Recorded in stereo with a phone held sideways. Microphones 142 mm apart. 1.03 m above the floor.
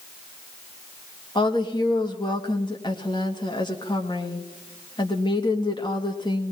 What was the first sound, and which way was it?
A woman speaking, 30° left (ahead or behind).